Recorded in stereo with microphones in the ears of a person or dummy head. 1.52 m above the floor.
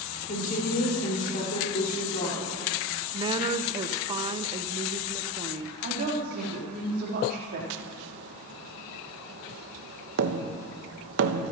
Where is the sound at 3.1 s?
25° right (ahead or behind), 0.6 m.